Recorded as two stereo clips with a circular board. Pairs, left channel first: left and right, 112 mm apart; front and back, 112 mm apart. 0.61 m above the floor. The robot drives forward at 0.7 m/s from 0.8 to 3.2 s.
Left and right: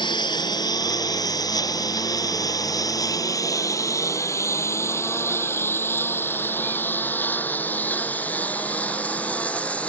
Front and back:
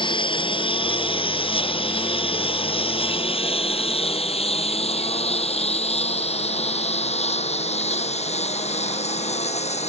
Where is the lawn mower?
45° left; by 9.9 s 10° left.